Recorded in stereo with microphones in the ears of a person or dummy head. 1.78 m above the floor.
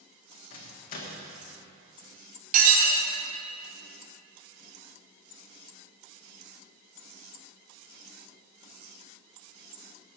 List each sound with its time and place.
0.5 s a microwave: 45° left (ahead or behind), 1.3 m
2.5 s dishes clattering: 45° right (ahead or behind), 2.0 m